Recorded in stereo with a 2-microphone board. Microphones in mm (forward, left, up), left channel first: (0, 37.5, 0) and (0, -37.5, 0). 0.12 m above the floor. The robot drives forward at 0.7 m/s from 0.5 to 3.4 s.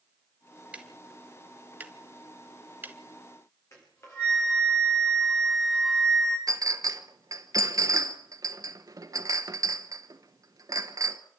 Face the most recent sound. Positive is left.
turn(degrees=-55)  # may be behind; listen again after turning